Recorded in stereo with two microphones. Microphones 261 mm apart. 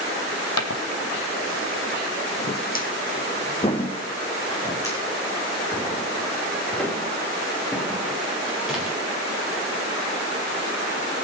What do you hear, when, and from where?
0.6 s footsteps: 75° left (ahead or behind), 1.3 m; by 9.0 s centre (ahead or behind), 4.5 m